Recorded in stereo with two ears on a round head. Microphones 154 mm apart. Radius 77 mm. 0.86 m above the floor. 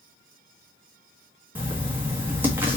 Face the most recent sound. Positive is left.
turn(degrees=-10)  # may be behind; listen again after turning